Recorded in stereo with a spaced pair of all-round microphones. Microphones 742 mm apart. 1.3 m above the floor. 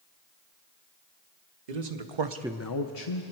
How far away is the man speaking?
About 1.2 m.